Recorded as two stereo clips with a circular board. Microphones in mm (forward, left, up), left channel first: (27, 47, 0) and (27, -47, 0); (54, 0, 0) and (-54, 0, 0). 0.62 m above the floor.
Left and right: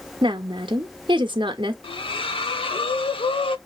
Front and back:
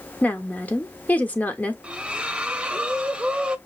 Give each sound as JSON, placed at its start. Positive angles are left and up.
{"t": 0.2, "sound": "a woman speaking", "azimuth_deg": -75, "distance_m": 1.3}
{"t": 1.8, "sound": "a splash", "azimuth_deg": 100, "distance_m": 0.8}